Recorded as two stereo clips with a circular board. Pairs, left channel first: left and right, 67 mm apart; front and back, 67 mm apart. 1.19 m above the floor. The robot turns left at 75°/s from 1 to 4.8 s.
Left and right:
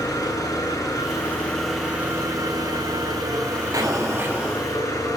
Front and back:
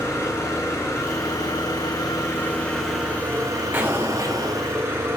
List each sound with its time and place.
0.0 s an engine running: 50° left, 10 m; by 5.2 s 125° left, 10 m
3.7 s an explosion: 120° right, 6.5 m; by 4.7 s 175° left, 6.5 m